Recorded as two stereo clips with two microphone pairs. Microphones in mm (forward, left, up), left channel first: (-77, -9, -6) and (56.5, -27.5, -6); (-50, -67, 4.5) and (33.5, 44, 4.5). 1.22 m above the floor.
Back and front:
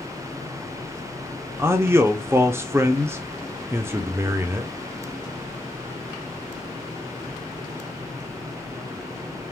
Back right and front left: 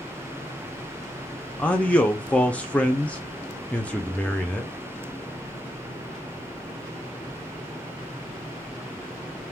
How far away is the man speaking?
About 0.5 m.